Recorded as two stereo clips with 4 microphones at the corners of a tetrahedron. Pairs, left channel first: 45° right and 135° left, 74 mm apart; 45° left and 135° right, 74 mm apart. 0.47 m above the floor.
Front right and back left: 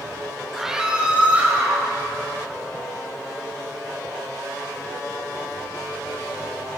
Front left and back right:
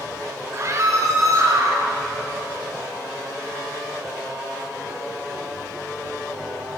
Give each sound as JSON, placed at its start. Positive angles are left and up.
{"t": 0.5, "sound": "a scream", "azimuth_deg": -140, "distance_m": 1.0}